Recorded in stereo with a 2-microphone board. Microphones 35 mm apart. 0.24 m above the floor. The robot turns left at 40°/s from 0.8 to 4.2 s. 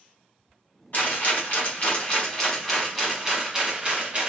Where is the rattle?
85° left, 1.3 m; by 4.3 s 45° right, 1.3 m.